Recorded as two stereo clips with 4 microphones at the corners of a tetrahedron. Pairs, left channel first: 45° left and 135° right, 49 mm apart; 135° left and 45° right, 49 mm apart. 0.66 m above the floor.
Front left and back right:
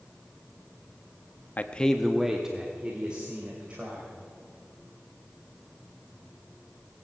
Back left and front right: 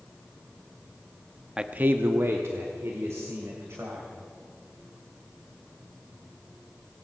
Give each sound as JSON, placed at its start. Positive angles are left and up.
{"t": 1.6, "sound": "a man speaking", "azimuth_deg": 25, "distance_m": 0.6}